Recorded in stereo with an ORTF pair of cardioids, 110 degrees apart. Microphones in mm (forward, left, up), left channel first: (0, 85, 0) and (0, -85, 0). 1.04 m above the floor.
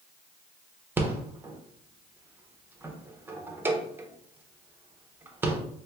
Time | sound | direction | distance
1.0 | a rattle | 10° right | 0.7 m